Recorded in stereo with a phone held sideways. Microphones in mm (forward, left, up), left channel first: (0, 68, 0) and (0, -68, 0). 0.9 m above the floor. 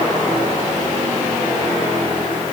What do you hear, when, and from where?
Only background noise.